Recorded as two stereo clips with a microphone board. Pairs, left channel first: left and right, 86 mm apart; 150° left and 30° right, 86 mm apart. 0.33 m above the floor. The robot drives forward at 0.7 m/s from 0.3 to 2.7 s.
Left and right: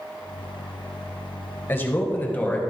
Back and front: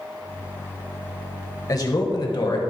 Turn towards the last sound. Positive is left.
turn(degrees=160)